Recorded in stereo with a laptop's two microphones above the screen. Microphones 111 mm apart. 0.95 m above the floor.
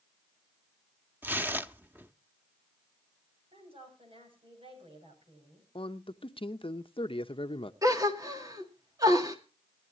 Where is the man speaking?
50° left (ahead or behind), 0.9 m.